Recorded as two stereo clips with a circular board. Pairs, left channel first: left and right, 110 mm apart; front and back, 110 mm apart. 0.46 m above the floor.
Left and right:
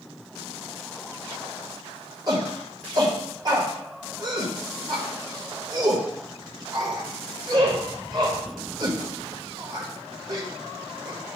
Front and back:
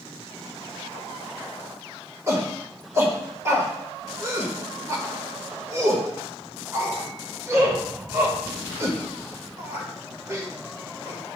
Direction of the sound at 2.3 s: 125° right.